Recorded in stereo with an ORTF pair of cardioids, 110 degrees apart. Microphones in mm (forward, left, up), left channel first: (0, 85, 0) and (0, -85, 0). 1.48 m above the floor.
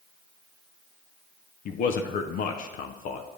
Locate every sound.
1.6 s a man speaking: 60° left, 0.6 m